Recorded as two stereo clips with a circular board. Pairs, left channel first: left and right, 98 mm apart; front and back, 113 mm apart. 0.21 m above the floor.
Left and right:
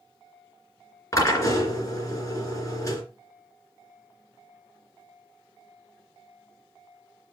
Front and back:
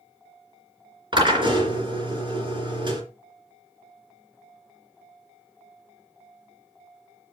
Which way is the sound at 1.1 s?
145° left.